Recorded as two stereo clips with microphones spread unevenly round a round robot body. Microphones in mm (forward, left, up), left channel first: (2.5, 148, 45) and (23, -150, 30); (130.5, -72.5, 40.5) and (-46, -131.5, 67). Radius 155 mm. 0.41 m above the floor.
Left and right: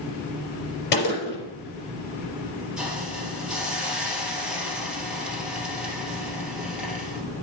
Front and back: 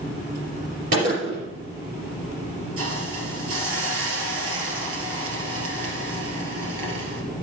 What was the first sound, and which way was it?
A gunshot, 155° left.